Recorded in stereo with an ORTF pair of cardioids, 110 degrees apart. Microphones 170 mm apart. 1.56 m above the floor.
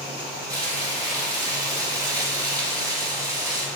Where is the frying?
20° right, 3 m.